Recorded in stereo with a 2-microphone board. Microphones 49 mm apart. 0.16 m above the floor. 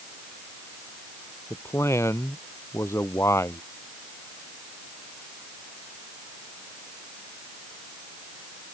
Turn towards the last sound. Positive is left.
turn(degrees=70)  # may be behind; listen again after turning